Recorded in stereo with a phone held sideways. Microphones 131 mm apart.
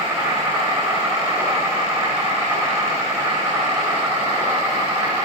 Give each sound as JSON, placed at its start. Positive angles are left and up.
{"t": 0.0, "sound": "an insect", "side_deg": -20, "distance_m": 7.0}